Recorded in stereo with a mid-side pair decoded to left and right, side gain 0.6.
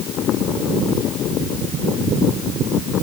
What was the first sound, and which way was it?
Only background noise.